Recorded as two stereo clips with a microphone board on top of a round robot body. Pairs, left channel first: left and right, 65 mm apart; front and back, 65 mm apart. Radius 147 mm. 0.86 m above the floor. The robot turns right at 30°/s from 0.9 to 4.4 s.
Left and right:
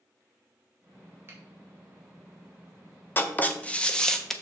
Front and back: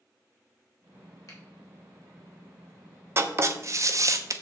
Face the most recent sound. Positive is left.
turn(degrees=175)